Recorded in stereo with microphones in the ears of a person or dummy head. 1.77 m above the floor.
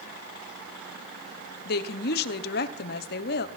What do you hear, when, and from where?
1.6 s a woman speaking: 60° left (ahead or behind), 1.3 m